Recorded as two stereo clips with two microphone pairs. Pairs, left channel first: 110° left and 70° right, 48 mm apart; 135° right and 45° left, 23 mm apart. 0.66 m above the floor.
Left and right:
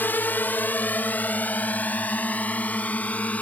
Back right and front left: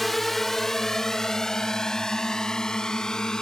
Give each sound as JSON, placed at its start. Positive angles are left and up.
{"t": 0.0, "sound": "a drone", "azimuth_deg": 145}